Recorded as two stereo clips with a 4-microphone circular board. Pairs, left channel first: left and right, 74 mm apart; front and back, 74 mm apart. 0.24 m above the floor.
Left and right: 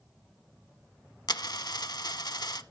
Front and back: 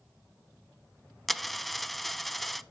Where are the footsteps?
I don't hear footsteps.